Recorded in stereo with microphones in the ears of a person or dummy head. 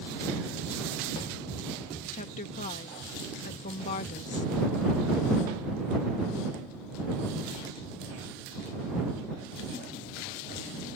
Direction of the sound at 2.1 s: 40° left (ahead or behind).